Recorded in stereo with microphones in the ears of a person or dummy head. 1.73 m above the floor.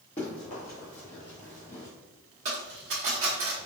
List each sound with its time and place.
0.2 s running footsteps: 20° left (ahead or behind), 1.8 m; by 1.9 s 25° left (ahead or behind), 2 m
2.5 s a dropped coin: 20° right (ahead or behind), 1.4 m